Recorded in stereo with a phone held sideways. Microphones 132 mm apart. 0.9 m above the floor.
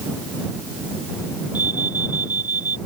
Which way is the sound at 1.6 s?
30° left (ahead or behind).